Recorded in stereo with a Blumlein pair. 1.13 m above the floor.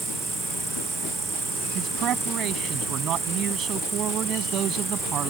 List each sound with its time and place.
0.0 s an insect: 10° right
1.8 s a man speaking: 35° right